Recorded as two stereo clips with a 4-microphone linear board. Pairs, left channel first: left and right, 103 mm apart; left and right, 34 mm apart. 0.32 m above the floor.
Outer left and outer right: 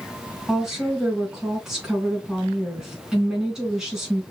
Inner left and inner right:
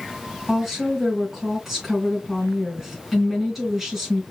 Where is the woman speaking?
5° right (ahead or behind), 3 m.